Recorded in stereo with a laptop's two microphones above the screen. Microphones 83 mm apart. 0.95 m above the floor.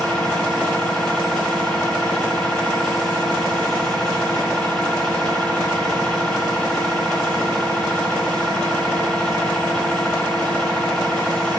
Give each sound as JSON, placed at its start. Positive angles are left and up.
{"t": 0.0, "sound": "a machine running", "side_deg": 10, "distance_m": 1.5}